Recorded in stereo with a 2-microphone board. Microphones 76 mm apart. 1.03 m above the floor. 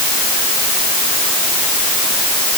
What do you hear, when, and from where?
Only background noise.